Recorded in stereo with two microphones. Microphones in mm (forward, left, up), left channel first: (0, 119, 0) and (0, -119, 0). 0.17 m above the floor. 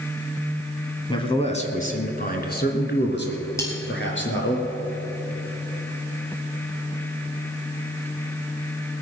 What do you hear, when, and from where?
1.1 s a man speaking: 20° left (ahead or behind), 1.3 m; by 4.6 s 55° left (ahead or behind), 3 m
3.6 s cutlery clinking: 10° left (ahead or behind), 2.5 m